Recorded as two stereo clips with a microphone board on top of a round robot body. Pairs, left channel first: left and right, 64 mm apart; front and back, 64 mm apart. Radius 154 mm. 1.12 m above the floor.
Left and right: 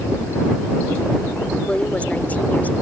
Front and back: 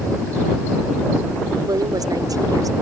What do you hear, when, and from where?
1.7 s a woman speaking: 160° left; by 2.7 s 155° left